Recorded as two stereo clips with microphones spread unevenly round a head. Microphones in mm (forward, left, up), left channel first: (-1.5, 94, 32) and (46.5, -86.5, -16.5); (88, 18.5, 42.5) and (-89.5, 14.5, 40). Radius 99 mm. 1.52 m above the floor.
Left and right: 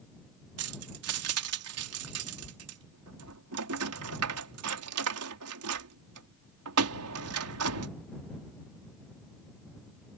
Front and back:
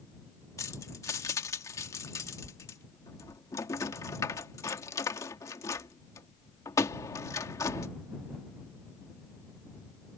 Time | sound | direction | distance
0.6 | keys jangling | 75° right | ?